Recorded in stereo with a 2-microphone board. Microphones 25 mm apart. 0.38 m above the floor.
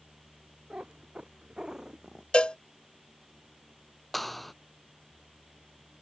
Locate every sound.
0.7 s a cat meowing: 45° right (ahead or behind); by 2.2 s 25° right (ahead or behind)
2.3 s a cowbell: 45° left (ahead or behind)
4.1 s a clap: centre (ahead or behind)